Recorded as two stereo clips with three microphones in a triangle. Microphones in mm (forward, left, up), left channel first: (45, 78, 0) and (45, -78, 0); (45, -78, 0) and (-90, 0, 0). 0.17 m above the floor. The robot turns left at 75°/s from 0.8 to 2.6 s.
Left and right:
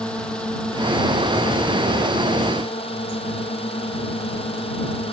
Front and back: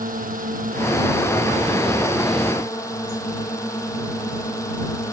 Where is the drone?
175° left; by 5.1 s 40° left.